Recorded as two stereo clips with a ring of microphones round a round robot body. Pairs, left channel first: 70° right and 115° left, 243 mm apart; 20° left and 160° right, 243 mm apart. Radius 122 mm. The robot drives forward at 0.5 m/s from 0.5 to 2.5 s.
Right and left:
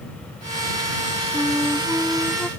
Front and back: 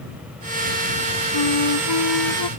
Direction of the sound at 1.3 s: 20° left.